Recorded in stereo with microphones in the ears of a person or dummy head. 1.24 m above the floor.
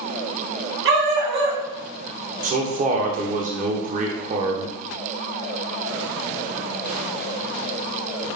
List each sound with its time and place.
0.8 s a dog barking: 65° right (ahead or behind), 1.6 m
2.4 s a man speaking: 45° right (ahead or behind), 0.6 m